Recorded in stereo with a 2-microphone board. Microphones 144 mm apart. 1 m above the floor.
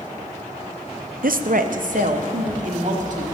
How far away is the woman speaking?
About 0.5 m.